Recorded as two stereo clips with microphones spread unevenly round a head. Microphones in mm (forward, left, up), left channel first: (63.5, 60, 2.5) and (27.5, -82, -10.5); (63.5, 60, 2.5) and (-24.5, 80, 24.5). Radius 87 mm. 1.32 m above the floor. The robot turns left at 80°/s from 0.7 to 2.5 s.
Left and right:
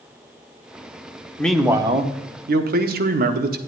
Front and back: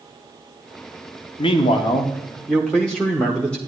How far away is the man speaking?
About 1.1 m.